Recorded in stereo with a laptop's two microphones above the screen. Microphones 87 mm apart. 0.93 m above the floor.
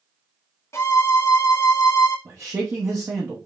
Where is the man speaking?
30° right (ahead or behind), 0.9 m.